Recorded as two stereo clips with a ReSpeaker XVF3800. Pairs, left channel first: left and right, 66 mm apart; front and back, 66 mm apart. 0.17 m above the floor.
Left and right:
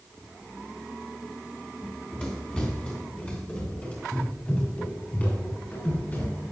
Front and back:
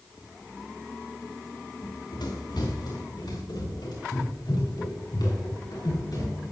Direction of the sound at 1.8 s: 10° left.